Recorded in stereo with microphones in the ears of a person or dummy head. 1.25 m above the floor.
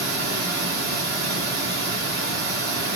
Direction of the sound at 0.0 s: 70° right (ahead or behind).